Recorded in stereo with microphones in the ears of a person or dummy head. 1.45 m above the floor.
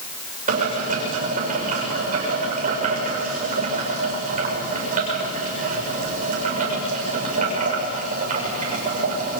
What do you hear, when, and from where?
0.5 s boiling: 45° right (ahead or behind), 7 m